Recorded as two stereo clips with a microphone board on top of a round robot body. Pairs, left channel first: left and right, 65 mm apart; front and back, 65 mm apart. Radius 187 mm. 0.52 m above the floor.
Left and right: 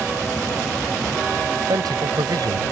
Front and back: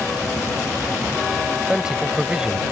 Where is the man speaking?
100° right.